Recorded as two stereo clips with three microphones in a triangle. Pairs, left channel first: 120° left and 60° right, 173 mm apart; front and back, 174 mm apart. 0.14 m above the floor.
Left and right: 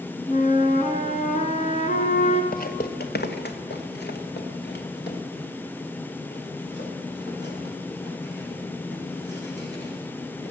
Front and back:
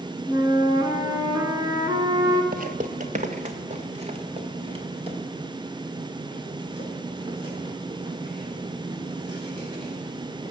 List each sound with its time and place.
0.3 s a flute: 120° left, 1.2 m
2.5 s footsteps: 150° left, 0.9 m; by 10.5 s 120° left, 7 m